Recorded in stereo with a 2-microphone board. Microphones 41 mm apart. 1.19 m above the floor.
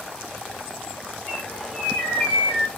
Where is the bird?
40° left (ahead or behind), 2.5 m.